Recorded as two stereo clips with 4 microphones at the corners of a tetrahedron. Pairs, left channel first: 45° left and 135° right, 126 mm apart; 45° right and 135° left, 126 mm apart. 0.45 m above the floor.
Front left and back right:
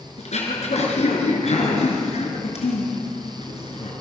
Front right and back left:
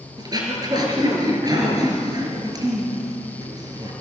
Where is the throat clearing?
75° left, 5 m.